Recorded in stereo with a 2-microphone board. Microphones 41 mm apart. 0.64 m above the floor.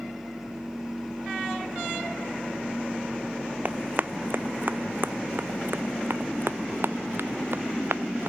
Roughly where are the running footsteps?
Right.